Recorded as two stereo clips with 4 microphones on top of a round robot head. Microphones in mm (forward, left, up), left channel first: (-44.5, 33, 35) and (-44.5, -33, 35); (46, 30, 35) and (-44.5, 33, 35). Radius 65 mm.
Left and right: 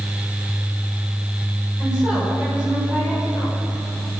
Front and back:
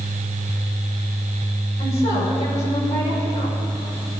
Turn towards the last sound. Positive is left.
turn(degrees=-10)